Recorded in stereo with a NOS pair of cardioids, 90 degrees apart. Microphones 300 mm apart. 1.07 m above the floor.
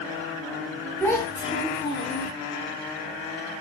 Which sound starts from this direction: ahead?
A child speaking, at 1.0 s.